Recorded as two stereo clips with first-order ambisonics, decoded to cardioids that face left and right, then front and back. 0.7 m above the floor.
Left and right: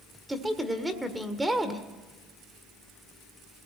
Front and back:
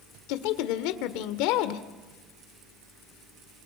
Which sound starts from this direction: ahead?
A woman speaking, at 0.3 s.